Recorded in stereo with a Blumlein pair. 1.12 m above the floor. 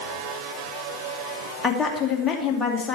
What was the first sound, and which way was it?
A woman speaking, 20° left.